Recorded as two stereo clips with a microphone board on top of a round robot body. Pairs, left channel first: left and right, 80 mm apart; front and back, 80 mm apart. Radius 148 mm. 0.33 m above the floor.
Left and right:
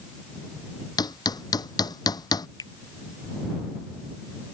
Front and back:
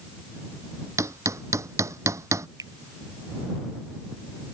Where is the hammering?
125° left.